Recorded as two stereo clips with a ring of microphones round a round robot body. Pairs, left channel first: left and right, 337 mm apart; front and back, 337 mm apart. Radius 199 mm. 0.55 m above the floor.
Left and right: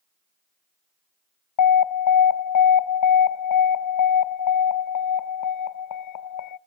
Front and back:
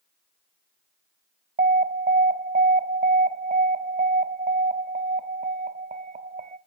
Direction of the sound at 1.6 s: 115° left.